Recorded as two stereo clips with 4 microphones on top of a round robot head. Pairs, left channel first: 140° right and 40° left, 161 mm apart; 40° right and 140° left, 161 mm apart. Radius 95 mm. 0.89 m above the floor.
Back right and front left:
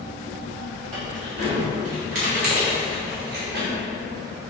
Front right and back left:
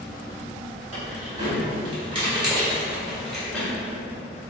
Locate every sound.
0.9 s keys jangling: 95° left, 2.0 m; by 3.7 s 35° left, 1.1 m